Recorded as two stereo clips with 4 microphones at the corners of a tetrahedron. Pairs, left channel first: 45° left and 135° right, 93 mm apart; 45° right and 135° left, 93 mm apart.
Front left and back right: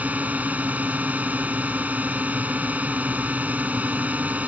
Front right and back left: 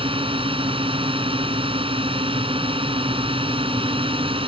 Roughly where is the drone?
Behind left.